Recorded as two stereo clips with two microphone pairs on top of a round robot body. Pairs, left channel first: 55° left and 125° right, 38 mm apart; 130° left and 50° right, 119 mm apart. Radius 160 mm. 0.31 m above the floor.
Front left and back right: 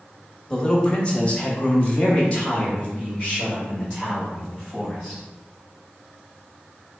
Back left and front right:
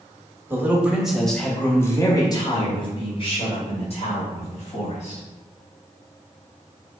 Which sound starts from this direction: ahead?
A man speaking, at 0.5 s.